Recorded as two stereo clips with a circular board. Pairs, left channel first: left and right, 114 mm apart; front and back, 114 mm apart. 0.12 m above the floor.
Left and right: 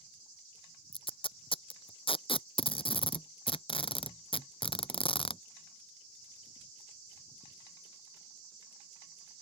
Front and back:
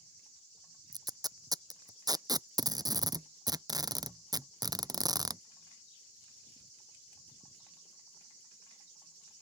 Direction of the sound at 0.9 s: 125° left.